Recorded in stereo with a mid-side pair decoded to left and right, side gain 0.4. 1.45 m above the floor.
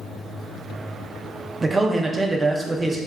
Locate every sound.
1.6 s a man speaking: 30° right, 0.6 m